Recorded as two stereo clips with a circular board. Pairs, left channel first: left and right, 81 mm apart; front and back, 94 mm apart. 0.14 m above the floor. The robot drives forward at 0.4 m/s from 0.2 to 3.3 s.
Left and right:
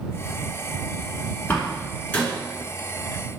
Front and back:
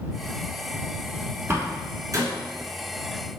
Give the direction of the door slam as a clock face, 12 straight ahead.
7 o'clock.